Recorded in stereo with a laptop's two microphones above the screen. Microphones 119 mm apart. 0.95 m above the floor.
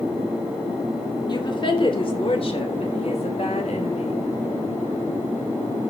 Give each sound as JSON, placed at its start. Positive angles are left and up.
{"t": 1.3, "sound": "a woman speaking", "side_deg": 40, "distance_m": 2.5}